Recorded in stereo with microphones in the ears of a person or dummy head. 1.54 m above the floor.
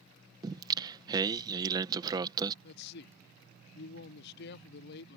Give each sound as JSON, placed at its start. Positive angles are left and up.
{"t": 0.4, "sound": "singing", "side_deg": -20}
{"t": 2.6, "sound": "a man speaking", "side_deg": 65}